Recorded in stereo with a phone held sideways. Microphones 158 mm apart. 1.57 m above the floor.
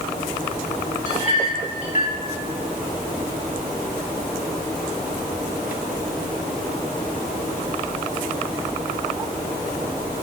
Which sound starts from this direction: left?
A clink, at 1.1 s.